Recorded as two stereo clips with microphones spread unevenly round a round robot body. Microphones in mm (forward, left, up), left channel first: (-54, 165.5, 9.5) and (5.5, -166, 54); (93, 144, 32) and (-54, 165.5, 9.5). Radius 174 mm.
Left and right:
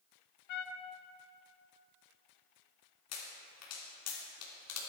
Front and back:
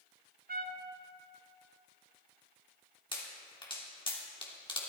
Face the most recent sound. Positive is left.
turn(degrees=55)